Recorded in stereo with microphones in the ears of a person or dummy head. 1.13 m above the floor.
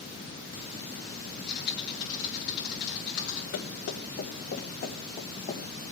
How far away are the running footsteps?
About 4 m.